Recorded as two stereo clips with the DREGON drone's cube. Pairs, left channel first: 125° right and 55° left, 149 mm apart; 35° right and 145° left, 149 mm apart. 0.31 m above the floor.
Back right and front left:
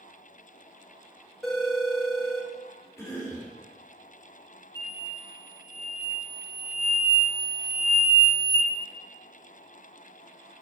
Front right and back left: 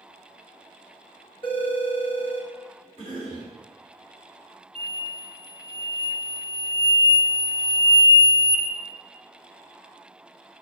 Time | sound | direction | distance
1.4 | a phone ringing | 35° right | 0.6 m
3.0 | a cough | 65° right | 1.9 m
4.8 | an explosion | 115° right | 0.9 m